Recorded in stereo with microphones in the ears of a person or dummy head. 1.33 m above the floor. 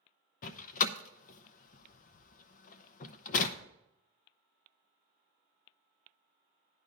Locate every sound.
0.4 s a door slam: 50° left (ahead or behind), 0.5 m